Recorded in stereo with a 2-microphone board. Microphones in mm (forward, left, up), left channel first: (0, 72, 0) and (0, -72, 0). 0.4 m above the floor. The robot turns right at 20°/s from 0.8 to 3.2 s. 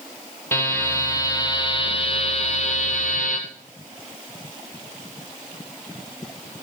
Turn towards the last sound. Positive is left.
turn(degrees=65)